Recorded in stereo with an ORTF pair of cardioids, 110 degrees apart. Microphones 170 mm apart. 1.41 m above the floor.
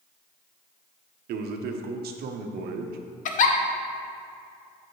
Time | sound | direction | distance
1.3 | a man speaking | 70° right | 0.8 m
3.2 | a giggle | 50° left | 0.7 m